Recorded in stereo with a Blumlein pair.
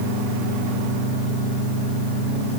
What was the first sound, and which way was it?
Only background noise.